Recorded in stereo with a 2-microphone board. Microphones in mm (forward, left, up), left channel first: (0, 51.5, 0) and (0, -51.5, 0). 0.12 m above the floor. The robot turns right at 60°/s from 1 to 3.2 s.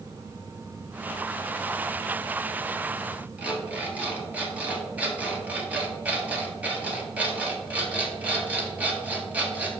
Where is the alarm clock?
15° right (ahead or behind), 1.4 m.